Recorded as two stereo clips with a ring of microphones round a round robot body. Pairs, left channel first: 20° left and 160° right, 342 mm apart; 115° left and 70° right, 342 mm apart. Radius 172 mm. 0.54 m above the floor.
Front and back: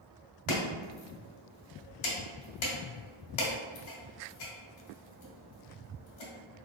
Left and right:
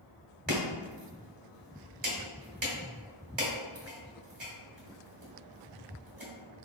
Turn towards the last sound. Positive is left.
turn(degrees=0)